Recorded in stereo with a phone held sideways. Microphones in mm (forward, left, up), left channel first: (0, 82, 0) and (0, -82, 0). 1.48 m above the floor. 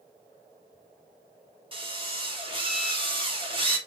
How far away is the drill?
About 3.5 m.